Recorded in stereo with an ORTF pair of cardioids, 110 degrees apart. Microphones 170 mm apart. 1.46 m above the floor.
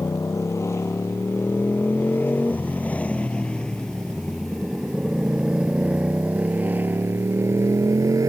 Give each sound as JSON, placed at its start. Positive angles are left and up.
{"t": 0.0, "sound": "a motorcycle", "azimuth_deg": 20}